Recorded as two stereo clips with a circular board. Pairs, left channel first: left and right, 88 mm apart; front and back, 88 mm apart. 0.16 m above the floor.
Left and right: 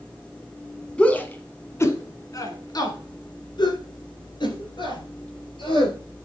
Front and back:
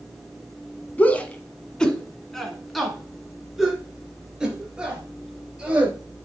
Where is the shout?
35° left, 1.4 m; by 6.0 s 100° left, 3.5 m.